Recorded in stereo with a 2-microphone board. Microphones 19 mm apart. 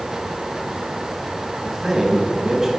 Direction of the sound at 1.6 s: 20° right (ahead or behind).